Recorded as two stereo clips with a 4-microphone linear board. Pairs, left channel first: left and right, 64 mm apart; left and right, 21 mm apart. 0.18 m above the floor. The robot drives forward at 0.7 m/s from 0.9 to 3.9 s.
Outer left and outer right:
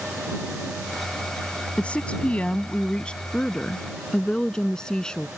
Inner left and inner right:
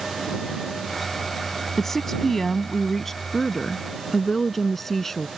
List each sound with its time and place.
1.8 s a woman speaking: 20° left (ahead or behind); by 5.3 s 15° left (ahead or behind)